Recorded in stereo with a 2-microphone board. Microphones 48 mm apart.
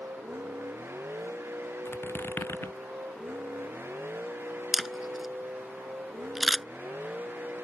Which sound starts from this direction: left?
A squeak, at 1.9 s.